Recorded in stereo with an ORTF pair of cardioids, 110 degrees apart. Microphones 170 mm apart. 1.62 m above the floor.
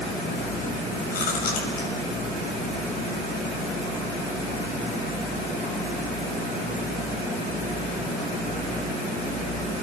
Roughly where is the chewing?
Ahead left.